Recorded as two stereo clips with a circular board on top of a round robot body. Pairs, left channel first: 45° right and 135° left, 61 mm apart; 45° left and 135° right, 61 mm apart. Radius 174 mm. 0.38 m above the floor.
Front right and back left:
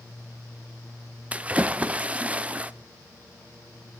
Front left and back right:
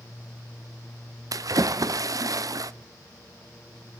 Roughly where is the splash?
Behind right.